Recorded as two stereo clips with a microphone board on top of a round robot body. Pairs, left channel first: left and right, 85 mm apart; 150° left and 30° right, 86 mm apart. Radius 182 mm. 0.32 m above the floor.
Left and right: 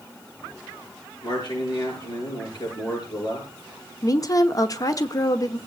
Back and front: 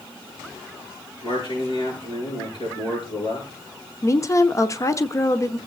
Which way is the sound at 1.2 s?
125° left.